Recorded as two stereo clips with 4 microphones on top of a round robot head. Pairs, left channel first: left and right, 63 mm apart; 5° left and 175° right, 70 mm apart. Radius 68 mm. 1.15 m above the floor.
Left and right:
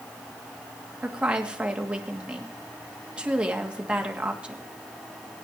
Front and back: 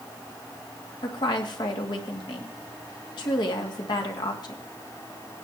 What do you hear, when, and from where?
1.0 s a woman speaking: 15° right, 1.7 m